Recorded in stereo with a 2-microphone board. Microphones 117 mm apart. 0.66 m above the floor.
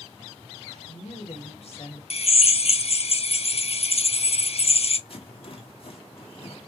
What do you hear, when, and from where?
0.7 s a woman speaking: 70° left (ahead or behind), 2.5 m; by 2.0 s 55° left (ahead or behind), 1.7 m
2.1 s a drill: 60° left (ahead or behind), 0.5 m
5.1 s a rattle: 55° left (ahead or behind), 1.5 m